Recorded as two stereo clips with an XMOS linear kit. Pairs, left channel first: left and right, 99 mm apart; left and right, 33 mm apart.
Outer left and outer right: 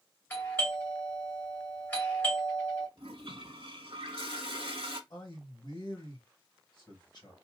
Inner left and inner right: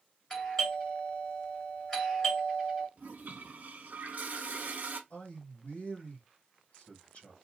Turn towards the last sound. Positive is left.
turn(degrees=50)  # may be behind; listen again after turning